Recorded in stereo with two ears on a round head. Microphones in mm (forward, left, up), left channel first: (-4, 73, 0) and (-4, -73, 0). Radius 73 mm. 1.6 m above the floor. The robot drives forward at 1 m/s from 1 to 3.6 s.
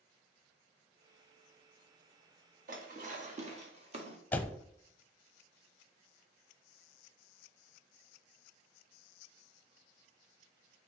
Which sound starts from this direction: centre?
A door slam, at 4.3 s.